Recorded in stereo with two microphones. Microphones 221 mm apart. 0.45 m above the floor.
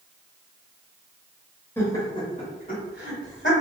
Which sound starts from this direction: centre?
Laughter, at 1.8 s.